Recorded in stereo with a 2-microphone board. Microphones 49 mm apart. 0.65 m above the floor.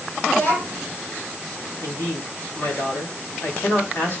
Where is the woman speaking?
65° left (ahead or behind), 3.5 m.